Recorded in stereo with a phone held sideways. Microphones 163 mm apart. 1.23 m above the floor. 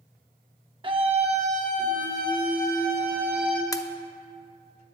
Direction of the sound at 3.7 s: 20° left (ahead or behind).